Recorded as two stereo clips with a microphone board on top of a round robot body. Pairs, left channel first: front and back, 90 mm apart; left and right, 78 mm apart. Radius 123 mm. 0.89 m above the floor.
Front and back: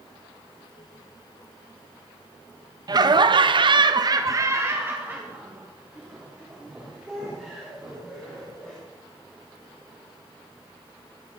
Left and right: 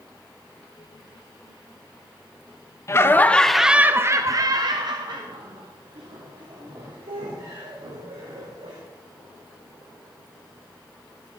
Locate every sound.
2.9 s laughter: 140° left, 1.0 m; by 8.8 s 90° right, 4 m